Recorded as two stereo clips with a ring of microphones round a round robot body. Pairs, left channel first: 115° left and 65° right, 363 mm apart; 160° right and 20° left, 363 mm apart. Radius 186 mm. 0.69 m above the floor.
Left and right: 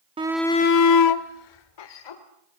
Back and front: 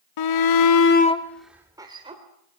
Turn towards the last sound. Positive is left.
turn(degrees=100)